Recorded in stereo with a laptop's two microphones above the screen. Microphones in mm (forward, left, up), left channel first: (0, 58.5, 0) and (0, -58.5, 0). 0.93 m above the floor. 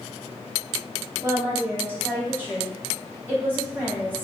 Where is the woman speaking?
15° right (ahead or behind), 1.6 m.